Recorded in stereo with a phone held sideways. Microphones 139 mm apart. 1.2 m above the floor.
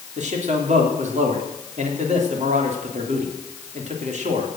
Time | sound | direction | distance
0.2 | a man speaking | 55° right (ahead or behind) | 3 m